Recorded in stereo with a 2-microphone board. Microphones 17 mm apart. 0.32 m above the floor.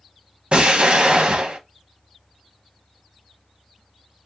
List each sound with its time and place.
0.5 s an explosion: 55° right (ahead or behind), 0.5 m